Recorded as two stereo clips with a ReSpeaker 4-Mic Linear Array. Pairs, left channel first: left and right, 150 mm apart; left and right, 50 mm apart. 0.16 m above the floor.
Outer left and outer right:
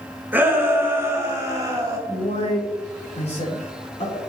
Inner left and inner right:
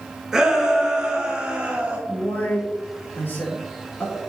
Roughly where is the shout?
Centre.